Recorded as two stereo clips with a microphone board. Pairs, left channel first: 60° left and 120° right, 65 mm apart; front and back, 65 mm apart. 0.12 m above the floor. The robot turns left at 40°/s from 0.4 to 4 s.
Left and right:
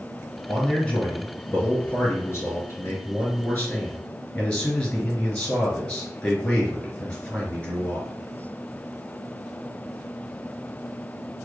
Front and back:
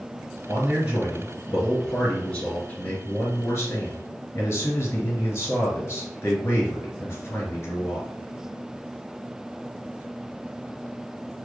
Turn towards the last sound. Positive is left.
turn(degrees=-10)